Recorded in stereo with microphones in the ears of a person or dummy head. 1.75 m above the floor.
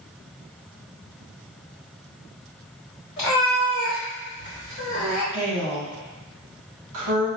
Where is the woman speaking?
70° right (ahead or behind), 1.6 m.